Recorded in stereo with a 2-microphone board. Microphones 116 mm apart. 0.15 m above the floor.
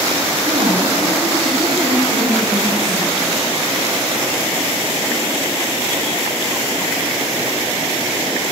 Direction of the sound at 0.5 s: 40° right (ahead or behind).